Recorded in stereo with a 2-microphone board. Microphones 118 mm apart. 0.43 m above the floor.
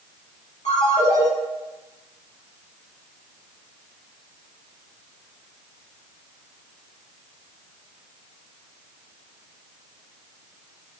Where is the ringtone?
75° left (ahead or behind), 3.5 m.